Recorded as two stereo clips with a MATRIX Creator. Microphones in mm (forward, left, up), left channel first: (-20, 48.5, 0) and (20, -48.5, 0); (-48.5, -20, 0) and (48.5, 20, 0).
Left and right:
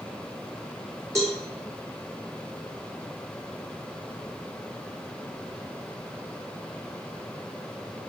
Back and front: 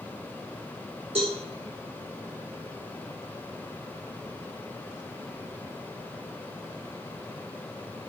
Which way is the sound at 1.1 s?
5° right.